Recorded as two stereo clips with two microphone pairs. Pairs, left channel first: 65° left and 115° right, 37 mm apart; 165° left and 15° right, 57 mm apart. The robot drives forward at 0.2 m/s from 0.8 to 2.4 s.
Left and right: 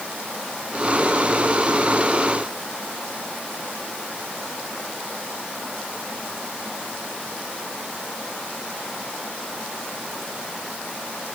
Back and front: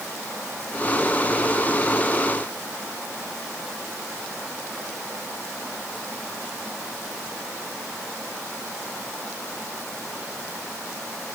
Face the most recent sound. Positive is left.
No sound to turn to.